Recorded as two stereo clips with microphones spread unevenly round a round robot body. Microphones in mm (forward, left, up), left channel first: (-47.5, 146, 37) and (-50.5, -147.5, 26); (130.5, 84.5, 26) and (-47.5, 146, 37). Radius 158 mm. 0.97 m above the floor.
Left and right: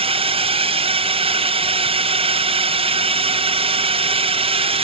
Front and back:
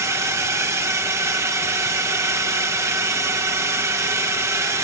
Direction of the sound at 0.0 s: 135° right.